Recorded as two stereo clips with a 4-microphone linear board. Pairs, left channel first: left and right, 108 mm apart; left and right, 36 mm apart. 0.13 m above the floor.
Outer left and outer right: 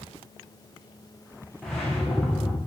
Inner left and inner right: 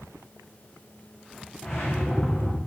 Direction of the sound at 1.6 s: 5° left (ahead or behind).